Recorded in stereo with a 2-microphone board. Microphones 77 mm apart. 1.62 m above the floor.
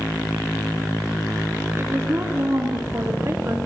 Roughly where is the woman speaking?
Right.